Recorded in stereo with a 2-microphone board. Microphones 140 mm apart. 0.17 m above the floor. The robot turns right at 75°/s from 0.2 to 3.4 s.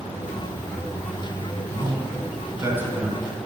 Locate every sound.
1.7 s a man speaking: 30° right (ahead or behind), 1.2 m; by 3.2 s centre (ahead or behind), 1.2 m